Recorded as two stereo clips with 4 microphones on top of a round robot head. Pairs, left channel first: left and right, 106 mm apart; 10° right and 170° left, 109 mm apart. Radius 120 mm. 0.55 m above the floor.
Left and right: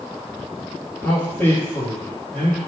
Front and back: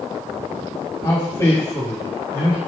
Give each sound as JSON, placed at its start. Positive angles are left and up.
{"t": 1.0, "sound": "a man speaking", "azimuth_deg": 20, "distance_m": 1.7}